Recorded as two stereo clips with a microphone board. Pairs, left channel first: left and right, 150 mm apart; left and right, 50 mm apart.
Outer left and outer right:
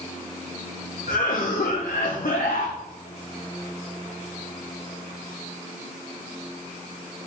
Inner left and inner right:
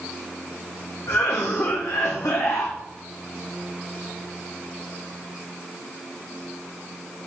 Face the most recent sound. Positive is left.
turn(degrees=75)  # may be behind; listen again after turning